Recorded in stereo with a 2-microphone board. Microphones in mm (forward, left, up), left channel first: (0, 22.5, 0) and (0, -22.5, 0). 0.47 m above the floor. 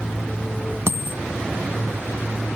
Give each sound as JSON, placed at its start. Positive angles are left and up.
{"t": 0.9, "sound": "a dropped coin", "side_deg": -60}